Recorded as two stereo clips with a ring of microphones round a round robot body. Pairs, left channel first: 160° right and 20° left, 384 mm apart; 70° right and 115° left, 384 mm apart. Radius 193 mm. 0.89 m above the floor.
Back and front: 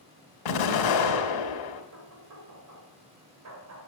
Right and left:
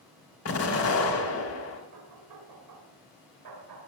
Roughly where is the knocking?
Left.